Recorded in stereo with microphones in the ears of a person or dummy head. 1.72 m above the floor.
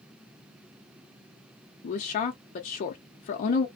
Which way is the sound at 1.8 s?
35° left (ahead or behind).